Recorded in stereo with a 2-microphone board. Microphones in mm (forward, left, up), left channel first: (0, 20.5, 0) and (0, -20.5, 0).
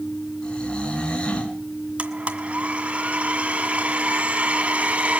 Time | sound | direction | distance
0.4 | snoring | 25° left (ahead or behind) | 4 m
2.0 | a blender | 35° right (ahead or behind) | 2 m